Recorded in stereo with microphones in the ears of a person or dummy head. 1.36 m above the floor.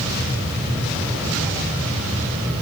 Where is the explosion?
I don't hear an explosion.